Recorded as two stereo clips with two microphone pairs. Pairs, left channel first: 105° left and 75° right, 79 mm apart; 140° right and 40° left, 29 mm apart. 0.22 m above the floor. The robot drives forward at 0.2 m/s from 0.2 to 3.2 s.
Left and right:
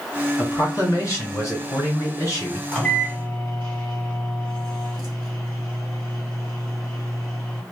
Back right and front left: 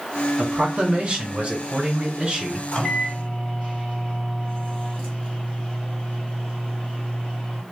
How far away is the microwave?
About 1.7 m.